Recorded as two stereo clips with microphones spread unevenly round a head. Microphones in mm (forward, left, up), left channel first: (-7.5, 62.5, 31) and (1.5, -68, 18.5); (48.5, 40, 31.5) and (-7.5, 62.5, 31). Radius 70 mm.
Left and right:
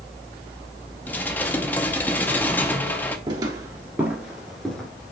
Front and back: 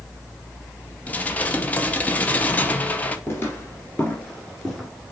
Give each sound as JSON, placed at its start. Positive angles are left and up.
{"t": 1.1, "sound": "dishes clattering", "azimuth_deg": 30, "distance_m": 0.8}
{"t": 3.3, "sound": "footsteps", "azimuth_deg": -35, "distance_m": 1.8}